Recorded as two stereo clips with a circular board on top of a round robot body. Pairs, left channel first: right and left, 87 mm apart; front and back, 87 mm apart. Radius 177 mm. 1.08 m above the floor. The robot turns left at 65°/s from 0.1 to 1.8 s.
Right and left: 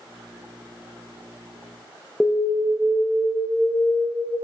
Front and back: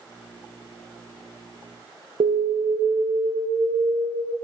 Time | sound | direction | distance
2.2 | an alarm | 175° right | 0.5 m